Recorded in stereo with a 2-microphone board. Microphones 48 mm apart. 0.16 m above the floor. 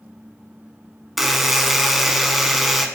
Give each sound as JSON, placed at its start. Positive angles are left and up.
{"t": 1.2, "sound": "a buzzer", "side_deg": -5, "distance_m": 0.5}